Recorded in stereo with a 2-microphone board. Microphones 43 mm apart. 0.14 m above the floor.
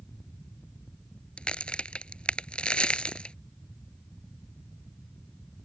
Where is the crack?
25° left (ahead or behind).